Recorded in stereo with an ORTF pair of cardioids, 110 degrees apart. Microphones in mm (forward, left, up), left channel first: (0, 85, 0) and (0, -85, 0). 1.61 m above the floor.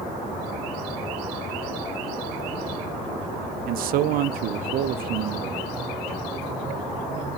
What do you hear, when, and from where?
3.7 s a man speaking: 70° right, 0.5 m